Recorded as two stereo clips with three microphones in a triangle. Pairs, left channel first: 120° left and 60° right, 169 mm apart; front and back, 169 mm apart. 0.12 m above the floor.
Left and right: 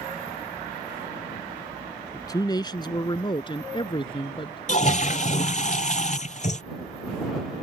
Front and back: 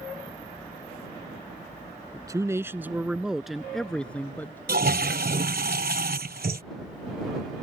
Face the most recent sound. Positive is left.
turn(degrees=160)